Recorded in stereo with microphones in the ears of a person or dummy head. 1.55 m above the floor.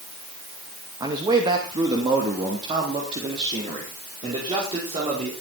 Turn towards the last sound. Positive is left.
turn(degrees=-30)  # may be behind; listen again after turning